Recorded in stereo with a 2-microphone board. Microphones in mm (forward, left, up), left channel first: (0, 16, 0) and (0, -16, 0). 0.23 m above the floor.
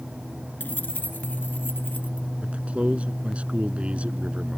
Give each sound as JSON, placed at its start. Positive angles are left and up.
{"t": 0.6, "sound": "keys jangling", "side_deg": 70}
{"t": 2.4, "sound": "a man speaking", "side_deg": -40}